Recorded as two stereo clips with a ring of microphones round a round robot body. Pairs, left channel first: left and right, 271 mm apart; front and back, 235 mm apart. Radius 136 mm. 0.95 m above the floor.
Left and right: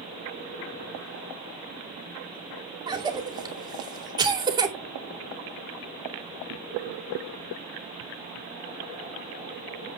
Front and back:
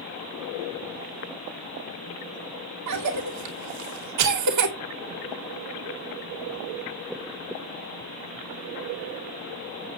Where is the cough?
165° right, 2.5 m.